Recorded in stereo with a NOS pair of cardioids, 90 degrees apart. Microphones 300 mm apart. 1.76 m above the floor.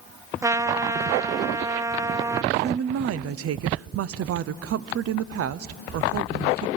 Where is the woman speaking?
55° right, 0.7 m.